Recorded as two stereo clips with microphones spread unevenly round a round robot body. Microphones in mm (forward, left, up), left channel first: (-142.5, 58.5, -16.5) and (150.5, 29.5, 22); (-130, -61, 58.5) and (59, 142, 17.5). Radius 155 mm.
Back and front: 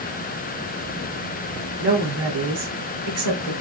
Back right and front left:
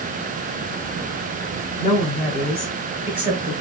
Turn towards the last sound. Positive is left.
turn(degrees=-25)